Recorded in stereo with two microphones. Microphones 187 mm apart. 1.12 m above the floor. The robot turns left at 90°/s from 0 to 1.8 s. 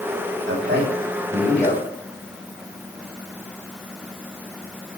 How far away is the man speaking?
About 8 m.